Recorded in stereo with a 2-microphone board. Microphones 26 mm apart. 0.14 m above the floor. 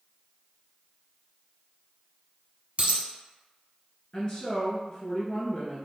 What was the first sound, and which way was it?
A dropped coin, 50° right (ahead or behind).